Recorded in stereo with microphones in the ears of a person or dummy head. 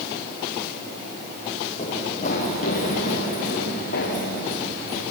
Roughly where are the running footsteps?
Left.